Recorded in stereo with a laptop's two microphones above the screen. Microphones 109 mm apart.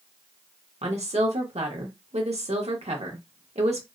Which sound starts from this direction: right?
A woman speaking, at 0.8 s.